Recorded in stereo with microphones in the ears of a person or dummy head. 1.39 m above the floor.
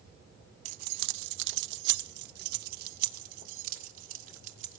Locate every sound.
0.7 s keys jangling: 50° right (ahead or behind), 0.6 m; by 4.8 s 45° right (ahead or behind), 3 m